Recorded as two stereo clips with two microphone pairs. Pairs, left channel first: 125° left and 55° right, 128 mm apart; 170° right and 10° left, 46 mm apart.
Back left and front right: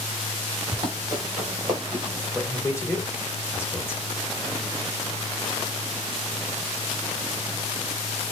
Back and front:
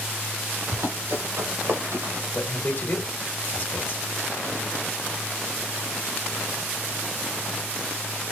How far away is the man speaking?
About 1.9 m.